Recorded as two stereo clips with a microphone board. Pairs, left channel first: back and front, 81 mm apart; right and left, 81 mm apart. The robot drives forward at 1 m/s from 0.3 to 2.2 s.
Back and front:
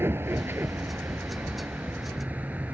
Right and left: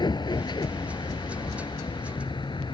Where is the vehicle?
65° right; by 2.8 s 70° right.